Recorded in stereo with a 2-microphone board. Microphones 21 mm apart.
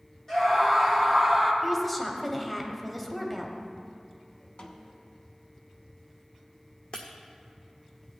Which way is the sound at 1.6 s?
5° left (ahead or behind).